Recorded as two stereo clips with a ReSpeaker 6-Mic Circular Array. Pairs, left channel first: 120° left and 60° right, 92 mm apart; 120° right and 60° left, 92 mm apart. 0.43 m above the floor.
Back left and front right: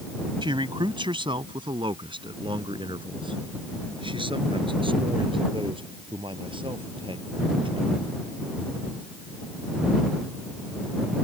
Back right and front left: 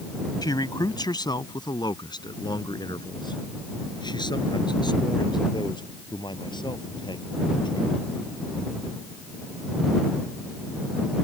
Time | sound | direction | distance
0.4 | a man speaking | 80° right | ?